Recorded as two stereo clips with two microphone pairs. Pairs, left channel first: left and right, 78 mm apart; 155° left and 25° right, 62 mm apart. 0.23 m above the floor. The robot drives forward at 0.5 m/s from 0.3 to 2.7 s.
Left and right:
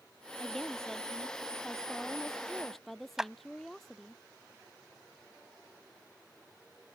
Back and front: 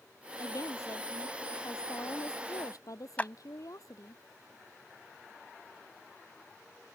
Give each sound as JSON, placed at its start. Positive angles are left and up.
{"t": 0.4, "sound": "a woman speaking", "azimuth_deg": 175}
{"t": 3.2, "sound": "a clap", "azimuth_deg": -165}